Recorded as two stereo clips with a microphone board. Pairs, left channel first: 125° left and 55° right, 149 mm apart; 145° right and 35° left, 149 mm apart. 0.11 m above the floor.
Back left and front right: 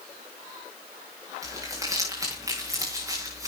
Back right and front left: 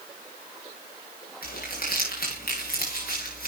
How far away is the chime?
No chime in this recording.